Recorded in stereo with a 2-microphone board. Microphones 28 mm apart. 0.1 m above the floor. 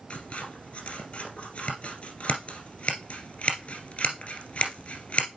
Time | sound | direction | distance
0.1 | scissors | 45° left (ahead or behind) | 2.5 m